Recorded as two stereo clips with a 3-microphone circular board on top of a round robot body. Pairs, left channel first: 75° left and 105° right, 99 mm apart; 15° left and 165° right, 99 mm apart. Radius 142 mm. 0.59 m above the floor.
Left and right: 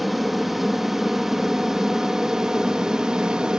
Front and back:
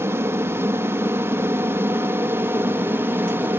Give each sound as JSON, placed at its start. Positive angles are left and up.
{"t": 0.0, "sound": "an aircraft", "azimuth_deg": 170}